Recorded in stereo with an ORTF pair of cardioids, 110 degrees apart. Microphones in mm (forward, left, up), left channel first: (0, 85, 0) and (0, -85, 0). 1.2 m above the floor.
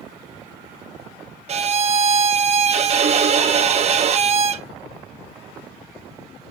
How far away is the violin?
About 0.8 m.